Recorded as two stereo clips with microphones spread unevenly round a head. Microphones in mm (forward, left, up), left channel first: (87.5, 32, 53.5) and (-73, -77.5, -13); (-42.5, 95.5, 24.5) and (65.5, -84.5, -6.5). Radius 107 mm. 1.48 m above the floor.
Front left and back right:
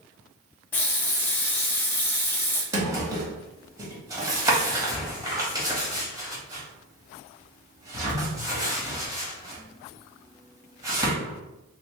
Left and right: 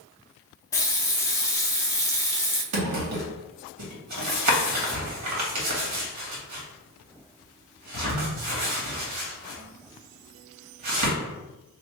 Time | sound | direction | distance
0.7 | a running tap | 70° left | 0.5 m
2.7 | a drawer | 65° right | 1.3 m